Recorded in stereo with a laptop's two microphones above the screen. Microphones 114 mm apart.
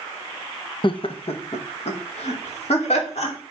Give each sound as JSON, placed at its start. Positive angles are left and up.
{"t": 0.8, "sound": "laughter", "side_deg": 45, "distance_m": 0.8}